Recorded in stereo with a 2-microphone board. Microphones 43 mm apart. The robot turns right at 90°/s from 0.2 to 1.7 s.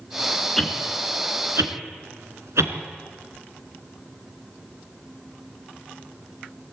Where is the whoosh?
10° left (ahead or behind), 2.5 m; by 2.8 s 85° right, 2.5 m.